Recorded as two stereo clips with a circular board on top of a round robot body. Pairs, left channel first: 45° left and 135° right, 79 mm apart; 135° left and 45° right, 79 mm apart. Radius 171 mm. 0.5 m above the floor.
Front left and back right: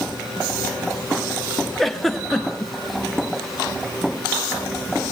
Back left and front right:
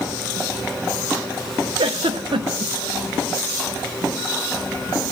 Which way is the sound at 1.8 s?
40° right.